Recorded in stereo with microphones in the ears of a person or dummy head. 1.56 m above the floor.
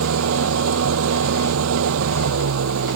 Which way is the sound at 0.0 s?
90° right.